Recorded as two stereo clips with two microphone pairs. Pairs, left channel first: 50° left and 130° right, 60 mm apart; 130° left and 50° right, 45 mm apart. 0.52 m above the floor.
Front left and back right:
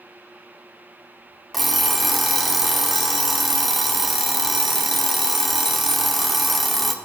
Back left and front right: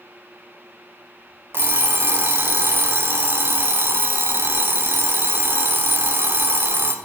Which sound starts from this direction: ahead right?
An alarm clock, at 1.5 s.